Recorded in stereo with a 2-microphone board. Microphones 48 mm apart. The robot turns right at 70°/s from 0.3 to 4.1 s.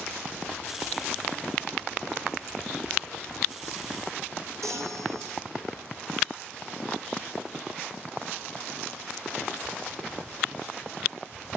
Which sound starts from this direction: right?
A chime, at 4.6 s.